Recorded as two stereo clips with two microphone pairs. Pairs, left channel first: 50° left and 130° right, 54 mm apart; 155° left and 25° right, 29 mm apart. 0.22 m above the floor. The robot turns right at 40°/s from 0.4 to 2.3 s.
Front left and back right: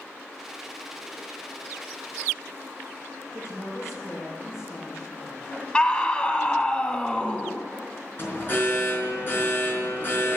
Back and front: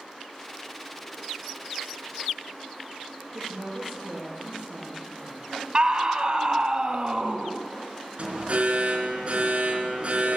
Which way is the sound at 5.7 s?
5° right.